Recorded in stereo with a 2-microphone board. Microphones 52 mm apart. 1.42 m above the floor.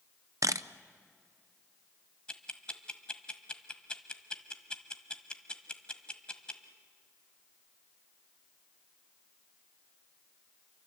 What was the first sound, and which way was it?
A camera shutter, 80° right.